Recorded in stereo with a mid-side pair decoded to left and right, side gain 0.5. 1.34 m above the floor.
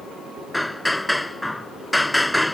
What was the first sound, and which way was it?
Hammering, 5° left.